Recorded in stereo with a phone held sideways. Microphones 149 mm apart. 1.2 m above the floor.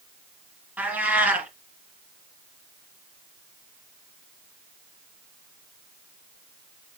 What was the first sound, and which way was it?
A cat meowing, 10° right (ahead or behind).